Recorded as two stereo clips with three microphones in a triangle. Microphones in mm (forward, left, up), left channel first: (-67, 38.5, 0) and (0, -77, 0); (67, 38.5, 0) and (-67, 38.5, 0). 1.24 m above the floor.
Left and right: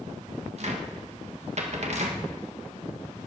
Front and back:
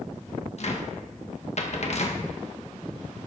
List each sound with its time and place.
0.6 s a cupboard door: 30° right, 1.9 m